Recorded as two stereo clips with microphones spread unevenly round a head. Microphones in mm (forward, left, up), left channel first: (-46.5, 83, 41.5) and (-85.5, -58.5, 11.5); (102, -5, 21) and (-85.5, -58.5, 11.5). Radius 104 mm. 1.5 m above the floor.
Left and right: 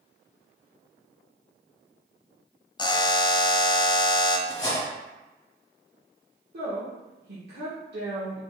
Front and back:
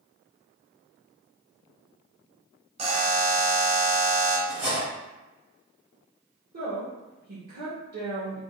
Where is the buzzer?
130° left, 0.5 m.